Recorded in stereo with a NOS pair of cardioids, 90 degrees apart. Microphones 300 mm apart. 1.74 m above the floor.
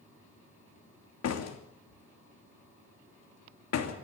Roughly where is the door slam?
Ahead left.